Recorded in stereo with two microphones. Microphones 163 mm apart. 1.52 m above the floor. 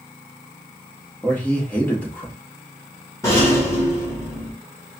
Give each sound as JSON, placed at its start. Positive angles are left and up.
{"t": 1.2, "sound": "a man speaking", "side_deg": 10, "distance_m": 1.4}
{"t": 3.2, "sound": "a rattle", "side_deg": 20, "distance_m": 1.9}